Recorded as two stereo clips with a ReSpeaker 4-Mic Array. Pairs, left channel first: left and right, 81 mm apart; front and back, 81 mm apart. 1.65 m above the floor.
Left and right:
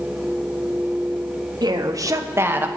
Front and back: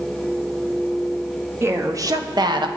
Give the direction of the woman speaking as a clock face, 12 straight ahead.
4 o'clock.